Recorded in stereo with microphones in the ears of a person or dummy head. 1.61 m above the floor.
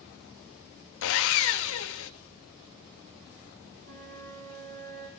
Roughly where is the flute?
Right.